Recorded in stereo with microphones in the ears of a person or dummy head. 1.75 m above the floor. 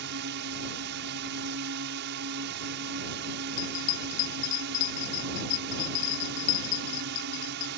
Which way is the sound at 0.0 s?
60° right (ahead or behind).